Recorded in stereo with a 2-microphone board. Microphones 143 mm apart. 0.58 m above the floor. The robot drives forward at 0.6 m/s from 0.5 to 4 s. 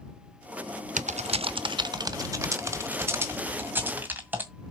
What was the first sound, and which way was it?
Typing on a keyboard, 60° right (ahead or behind).